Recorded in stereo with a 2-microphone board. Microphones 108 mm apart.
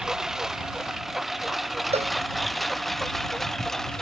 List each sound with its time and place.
0.0 s a lawn mower: 5° right (ahead or behind); by 4.0 s 5° left (ahead or behind)
1.9 s a cowbell: 70° right (ahead or behind)